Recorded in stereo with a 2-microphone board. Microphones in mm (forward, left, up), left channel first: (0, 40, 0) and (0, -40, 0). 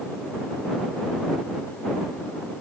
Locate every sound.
Only background noise.